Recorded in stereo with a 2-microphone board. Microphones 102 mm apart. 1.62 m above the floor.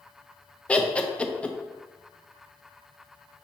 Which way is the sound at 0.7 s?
10° left (ahead or behind).